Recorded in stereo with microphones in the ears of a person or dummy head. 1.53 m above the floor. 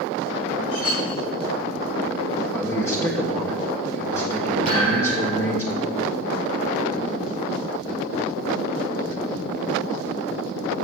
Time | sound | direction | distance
0.7 | a clink | 80° left | 5.5 m
2.5 | a man speaking | 20° left (ahead or behind) | 1.5 m
4.7 | a thud | 45° left (ahead or behind) | 5.5 m